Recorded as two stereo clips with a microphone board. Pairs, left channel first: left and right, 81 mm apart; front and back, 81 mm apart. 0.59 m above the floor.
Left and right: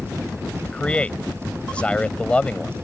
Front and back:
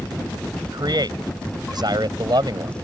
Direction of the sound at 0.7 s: 165° left.